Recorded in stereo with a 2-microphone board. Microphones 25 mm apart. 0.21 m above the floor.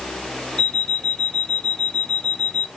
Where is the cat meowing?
No cat meowing in this recording.